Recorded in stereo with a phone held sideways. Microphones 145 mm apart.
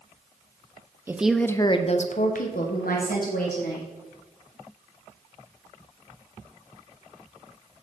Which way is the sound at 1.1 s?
15° right (ahead or behind).